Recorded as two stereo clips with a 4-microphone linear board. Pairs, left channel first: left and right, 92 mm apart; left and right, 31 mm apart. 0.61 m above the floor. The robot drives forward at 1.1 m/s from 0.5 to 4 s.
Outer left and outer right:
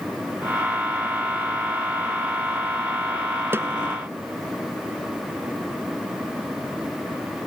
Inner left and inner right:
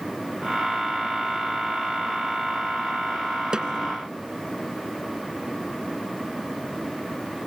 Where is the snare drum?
25° right (ahead or behind).